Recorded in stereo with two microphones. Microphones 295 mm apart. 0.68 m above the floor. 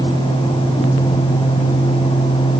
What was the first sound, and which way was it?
Only background noise.